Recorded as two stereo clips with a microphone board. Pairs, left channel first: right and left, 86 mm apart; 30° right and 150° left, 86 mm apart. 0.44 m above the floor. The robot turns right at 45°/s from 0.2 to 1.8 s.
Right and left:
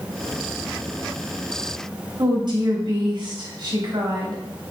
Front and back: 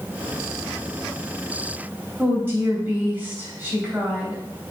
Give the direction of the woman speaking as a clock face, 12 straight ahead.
9 o'clock.